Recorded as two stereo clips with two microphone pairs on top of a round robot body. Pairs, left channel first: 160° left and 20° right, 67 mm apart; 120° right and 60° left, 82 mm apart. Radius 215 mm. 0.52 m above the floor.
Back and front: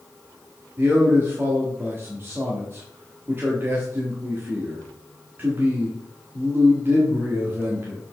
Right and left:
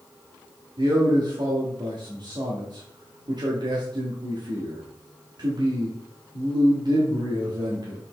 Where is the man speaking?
35° left, 1.7 m.